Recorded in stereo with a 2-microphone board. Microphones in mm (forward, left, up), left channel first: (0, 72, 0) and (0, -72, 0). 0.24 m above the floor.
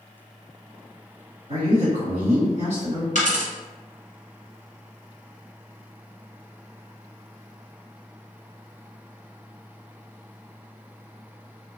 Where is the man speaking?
55° right (ahead or behind), 1.9 m.